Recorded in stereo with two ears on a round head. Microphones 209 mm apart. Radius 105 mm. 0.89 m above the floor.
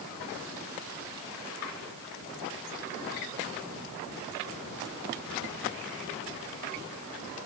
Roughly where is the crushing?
I don't hear crushing.